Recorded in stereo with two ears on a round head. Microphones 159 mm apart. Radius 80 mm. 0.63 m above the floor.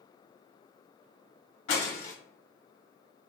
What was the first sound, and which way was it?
Breaking glass, 40° left (ahead or behind).